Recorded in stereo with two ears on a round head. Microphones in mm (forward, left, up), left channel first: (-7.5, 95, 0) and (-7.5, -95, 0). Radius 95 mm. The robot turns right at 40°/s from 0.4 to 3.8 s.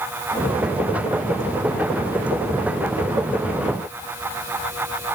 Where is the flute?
No flute in this recording.